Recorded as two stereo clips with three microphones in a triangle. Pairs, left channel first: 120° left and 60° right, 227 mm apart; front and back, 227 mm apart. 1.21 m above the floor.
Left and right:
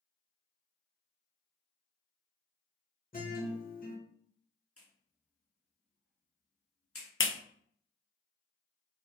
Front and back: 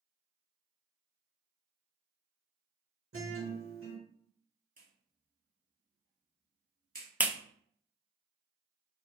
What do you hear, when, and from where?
3.1 s a guitar: 170° left, 1.8 m
4.8 s a clap: 130° left, 2.5 m
7.2 s a clap: 95° left, 0.5 m